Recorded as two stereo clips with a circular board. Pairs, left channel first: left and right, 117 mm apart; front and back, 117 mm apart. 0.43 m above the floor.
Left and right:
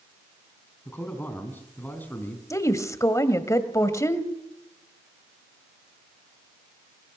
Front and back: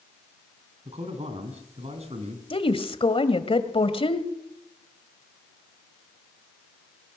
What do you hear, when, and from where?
0.8 s a man speaking: 165° left, 4 m
2.5 s a woman speaking: 30° left, 1.9 m